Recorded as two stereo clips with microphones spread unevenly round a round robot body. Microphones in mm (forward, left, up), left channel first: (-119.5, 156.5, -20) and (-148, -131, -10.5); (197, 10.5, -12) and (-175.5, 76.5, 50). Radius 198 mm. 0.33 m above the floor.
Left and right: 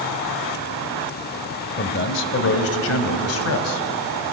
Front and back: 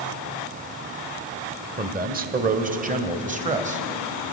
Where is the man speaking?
105° left, 1.7 m; by 3.9 s 95° left, 2.5 m.